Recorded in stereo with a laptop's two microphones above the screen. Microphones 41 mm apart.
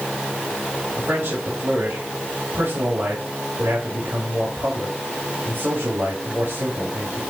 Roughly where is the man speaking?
Right.